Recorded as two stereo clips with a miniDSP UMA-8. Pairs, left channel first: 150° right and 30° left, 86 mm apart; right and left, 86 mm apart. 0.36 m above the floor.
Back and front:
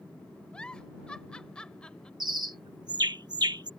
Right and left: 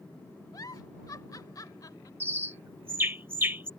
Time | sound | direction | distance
0.5 | a giggle | 75° right | ?
2.2 | a bird | 30° left | ?